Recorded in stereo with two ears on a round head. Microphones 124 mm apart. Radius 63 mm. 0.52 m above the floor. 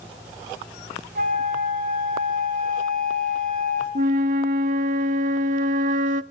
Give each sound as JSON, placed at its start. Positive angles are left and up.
{"t": 1.1, "sound": "a flute", "side_deg": -65, "distance_m": 4.0}
{"t": 4.0, "sound": "a flute", "side_deg": -60, "distance_m": 0.6}